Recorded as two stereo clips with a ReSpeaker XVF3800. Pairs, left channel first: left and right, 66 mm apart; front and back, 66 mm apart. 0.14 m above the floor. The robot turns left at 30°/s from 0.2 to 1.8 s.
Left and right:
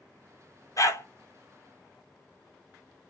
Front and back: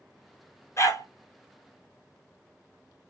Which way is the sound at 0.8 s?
50° left.